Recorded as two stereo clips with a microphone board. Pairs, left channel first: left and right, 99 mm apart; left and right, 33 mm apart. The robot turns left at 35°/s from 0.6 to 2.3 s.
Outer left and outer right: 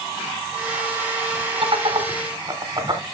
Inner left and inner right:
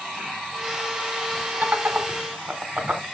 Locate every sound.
1.6 s laughter: 65° right (ahead or behind), 2.5 m; by 3.0 s 45° right (ahead or behind), 2.5 m